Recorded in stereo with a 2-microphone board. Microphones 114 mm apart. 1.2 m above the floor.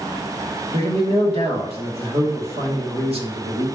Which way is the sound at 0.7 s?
60° right (ahead or behind).